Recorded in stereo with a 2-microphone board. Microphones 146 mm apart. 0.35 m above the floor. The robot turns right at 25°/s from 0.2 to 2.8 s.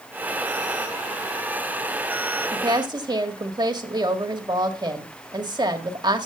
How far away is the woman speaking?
About 1.6 m.